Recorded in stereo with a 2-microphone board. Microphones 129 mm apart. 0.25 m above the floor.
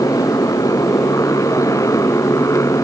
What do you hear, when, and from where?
0.0 s a motorcycle: 25° left (ahead or behind)